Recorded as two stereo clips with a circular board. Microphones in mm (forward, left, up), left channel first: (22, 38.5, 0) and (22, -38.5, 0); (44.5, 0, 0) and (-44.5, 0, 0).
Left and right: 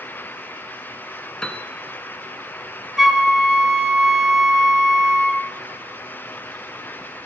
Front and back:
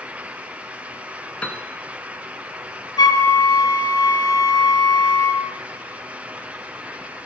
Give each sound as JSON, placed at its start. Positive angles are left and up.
{"t": 1.4, "sound": "a piano", "azimuth_deg": 35, "distance_m": 0.8}
{"t": 3.0, "sound": "a flute", "azimuth_deg": 0, "distance_m": 0.8}